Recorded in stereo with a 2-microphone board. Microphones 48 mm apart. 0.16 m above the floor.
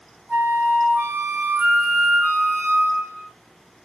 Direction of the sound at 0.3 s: 55° right (ahead or behind).